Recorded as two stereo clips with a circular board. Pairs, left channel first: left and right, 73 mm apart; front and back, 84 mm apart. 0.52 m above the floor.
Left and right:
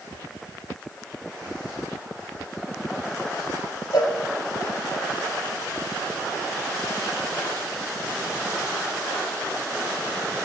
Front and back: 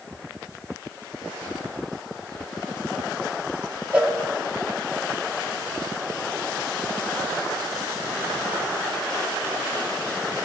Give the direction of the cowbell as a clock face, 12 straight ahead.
9 o'clock.